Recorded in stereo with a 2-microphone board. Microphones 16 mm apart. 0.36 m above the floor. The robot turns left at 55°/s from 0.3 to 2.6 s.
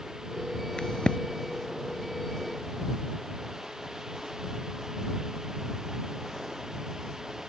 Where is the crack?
70° left (ahead or behind); by 1.2 s 85° left.